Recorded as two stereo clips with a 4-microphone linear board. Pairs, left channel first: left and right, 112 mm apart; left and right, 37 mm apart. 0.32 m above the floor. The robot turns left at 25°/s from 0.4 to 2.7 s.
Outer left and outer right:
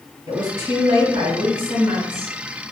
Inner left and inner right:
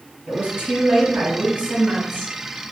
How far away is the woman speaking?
About 1.6 m.